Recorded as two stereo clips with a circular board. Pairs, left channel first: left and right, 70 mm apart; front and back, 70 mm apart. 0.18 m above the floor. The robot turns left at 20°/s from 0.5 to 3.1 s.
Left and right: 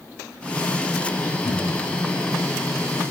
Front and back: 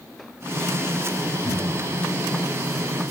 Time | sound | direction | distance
1.4 | a cupboard door | 85° left | 2.5 m